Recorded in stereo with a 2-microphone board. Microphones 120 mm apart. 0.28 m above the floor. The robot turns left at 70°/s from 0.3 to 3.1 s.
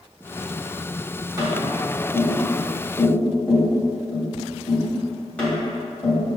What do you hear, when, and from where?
1.4 s tapping: 30° right (ahead or behind), 1.7 m; by 6.4 s 10° left (ahead or behind), 1.7 m